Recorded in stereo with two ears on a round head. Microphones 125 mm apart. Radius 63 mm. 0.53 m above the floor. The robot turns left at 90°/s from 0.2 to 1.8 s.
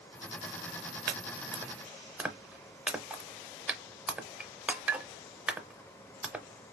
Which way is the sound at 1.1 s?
70° right (ahead or behind).